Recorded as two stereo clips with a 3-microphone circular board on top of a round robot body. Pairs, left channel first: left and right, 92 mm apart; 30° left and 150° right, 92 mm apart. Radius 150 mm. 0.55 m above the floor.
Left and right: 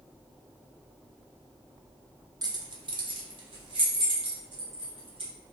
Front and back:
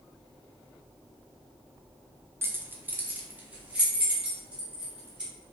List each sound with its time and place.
2.4 s keys jangling: 95° right, 0.6 m; by 5.3 s 75° right, 2 m